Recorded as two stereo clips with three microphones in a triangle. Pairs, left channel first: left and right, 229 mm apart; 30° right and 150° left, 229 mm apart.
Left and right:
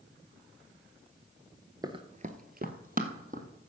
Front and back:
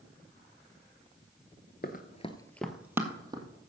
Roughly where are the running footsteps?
Ahead right.